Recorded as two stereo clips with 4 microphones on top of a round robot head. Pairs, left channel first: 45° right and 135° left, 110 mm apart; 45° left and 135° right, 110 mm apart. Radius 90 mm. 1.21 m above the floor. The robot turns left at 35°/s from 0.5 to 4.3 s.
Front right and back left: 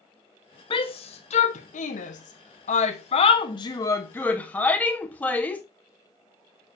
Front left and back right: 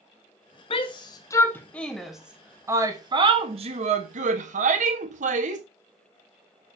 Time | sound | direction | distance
0.7 | a shout | 5° left | 1.5 m